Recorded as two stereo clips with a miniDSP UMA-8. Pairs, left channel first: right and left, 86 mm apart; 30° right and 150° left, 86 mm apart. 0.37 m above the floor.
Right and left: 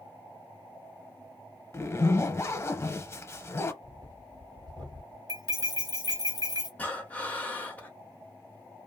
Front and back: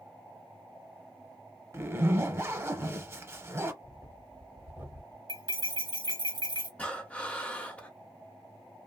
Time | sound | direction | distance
1.7 | a zipper | 150° right | 0.5 m
3.8 | breathing | 95° left | 1.8 m
5.3 | cutlery clinking | 130° left | 1.2 m
6.8 | breathing | 65° right | 0.8 m